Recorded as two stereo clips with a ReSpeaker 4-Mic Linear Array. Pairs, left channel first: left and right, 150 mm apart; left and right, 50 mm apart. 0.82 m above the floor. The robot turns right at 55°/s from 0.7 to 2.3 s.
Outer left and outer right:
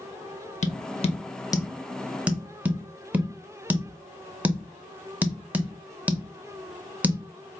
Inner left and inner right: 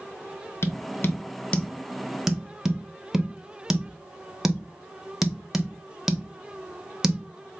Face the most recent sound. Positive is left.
turn(degrees=-10)  # may be behind; listen again after turning